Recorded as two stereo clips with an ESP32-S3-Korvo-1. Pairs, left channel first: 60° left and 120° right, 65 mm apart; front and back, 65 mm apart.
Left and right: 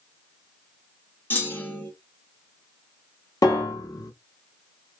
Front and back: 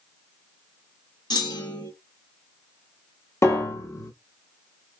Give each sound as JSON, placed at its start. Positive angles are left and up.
{"t": 1.3, "sound": "a clunk", "azimuth_deg": 0, "distance_m": 1.4}
{"t": 3.4, "sound": "a piano", "azimuth_deg": 40, "distance_m": 1.0}